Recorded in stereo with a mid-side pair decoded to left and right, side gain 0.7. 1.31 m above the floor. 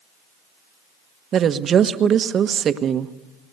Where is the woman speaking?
35° right, 1.3 m.